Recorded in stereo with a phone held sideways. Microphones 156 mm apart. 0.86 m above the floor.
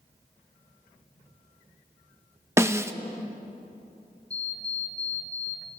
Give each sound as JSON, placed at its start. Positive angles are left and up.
{"t": 2.6, "sound": "a snare drum", "side_deg": -15, "distance_m": 0.8}
{"t": 4.3, "sound": "an alarm clock", "side_deg": 5, "distance_m": 6.0}